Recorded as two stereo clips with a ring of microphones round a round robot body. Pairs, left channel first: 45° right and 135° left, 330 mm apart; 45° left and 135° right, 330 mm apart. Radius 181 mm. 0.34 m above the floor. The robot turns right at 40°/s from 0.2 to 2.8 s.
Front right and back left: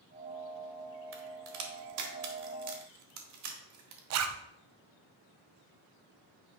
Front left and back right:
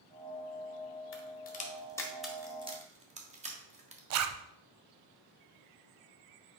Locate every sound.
1.1 s a crack: 90° left, 1.6 m; by 4.0 s 160° left, 1.6 m
4.1 s a zipper: straight behind, 0.7 m